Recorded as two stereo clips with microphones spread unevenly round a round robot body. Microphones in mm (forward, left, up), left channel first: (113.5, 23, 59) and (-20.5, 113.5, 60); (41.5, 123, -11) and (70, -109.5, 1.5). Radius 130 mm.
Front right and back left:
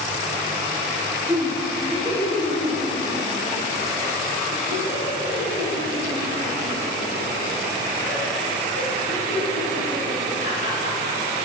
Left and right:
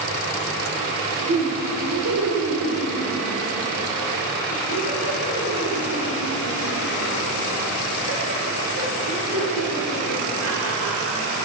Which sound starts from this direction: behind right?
Laughter, at 1.3 s.